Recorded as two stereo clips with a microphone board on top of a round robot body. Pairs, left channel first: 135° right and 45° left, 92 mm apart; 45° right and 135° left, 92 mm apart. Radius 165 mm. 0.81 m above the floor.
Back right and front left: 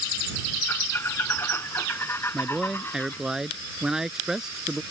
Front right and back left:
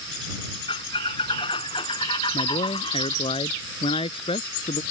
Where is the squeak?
70° right.